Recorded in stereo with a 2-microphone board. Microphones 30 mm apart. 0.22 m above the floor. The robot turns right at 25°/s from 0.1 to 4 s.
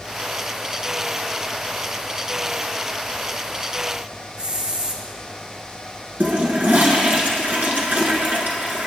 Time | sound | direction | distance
4.4 | a hiss | 35° right (ahead or behind) | 1.9 m
6.2 | a toilet flushing | 65° right (ahead or behind) | 2 m